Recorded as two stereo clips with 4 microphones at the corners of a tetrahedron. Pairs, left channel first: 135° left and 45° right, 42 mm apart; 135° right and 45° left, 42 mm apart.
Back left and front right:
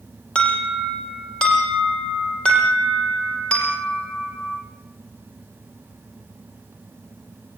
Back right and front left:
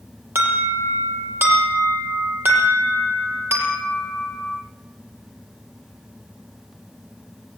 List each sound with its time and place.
0.3 s an alarm: 70° left, 7 m